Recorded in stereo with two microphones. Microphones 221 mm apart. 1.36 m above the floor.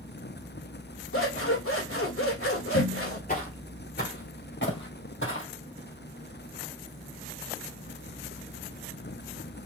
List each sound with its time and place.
1.1 s scissors: 75° left (ahead or behind), 1.6 m
3.3 s footsteps: 40° left (ahead or behind), 2 m; by 5.5 s 65° left (ahead or behind), 3 m